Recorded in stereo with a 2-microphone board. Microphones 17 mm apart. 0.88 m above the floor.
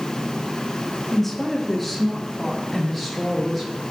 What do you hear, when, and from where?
1.1 s a woman speaking: 10° left (ahead or behind), 1.1 m; by 3.7 s centre (ahead or behind), 2.5 m